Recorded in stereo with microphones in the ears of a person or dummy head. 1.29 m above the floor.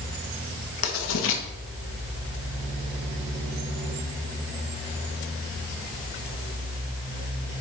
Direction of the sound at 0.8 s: 75° left (ahead or behind).